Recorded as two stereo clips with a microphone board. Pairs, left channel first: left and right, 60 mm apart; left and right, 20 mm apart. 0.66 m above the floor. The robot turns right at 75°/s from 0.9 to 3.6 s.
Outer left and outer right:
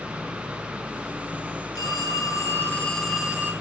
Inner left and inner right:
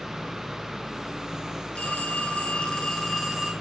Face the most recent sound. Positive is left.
turn(degrees=-145)